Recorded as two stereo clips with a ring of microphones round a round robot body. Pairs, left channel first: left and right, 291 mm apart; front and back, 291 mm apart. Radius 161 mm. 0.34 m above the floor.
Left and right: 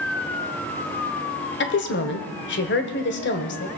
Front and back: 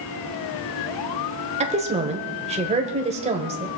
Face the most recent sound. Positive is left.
turn(degrees=120)